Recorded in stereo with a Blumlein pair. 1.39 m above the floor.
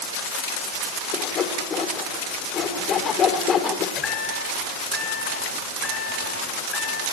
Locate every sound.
1.1 s sawing: 25° left, 3 m
4.0 s a chime: 20° left, 10 m